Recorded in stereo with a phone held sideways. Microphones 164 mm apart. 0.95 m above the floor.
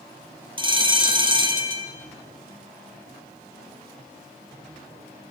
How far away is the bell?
About 3 m.